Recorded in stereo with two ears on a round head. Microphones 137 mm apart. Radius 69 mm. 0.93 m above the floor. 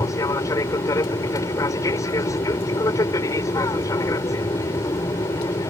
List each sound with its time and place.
0.0 s an aircraft: 20° left (ahead or behind)